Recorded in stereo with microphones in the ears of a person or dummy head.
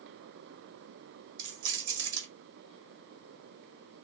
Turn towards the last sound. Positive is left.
turn(degrees=-85)